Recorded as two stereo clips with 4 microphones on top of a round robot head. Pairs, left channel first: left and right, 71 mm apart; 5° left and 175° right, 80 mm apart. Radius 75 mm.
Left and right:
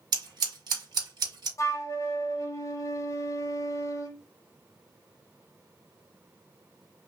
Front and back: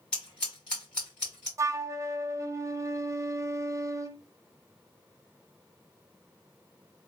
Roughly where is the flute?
Behind left.